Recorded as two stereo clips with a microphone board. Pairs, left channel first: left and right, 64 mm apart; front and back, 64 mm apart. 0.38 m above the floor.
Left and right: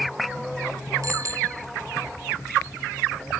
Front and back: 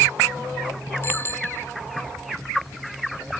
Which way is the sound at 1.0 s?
55° right.